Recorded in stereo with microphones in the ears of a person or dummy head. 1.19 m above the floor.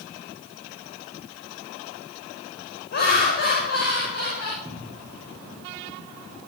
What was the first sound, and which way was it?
Laughter, 55° left (ahead or behind).